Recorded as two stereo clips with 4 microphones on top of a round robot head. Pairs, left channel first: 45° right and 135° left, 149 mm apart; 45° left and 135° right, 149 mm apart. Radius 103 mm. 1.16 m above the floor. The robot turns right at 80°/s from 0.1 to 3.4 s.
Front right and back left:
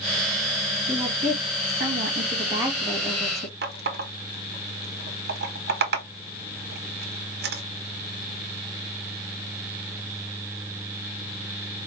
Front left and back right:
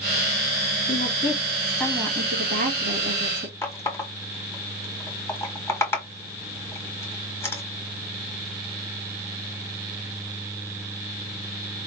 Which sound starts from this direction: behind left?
A running tap, at 3.6 s.